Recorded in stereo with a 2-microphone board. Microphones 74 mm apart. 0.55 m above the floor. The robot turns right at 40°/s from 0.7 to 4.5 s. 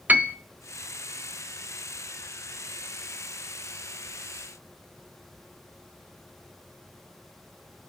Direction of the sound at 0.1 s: 20° right (ahead or behind).